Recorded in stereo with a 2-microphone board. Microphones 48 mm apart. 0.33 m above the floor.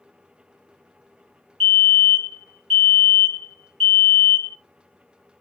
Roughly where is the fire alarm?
Centre.